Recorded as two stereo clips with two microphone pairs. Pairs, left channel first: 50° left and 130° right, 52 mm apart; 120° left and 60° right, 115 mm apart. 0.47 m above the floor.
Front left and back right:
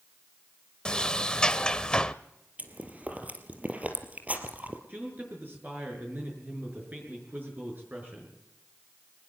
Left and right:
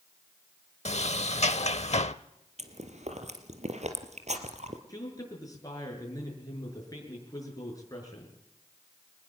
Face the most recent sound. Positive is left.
turn(degrees=175)